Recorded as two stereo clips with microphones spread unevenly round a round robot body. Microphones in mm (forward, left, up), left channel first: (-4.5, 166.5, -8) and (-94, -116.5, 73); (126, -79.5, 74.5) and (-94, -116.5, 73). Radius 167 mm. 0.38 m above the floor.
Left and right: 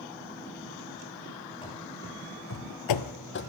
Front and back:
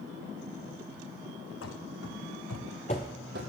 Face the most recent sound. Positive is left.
turn(degrees=135)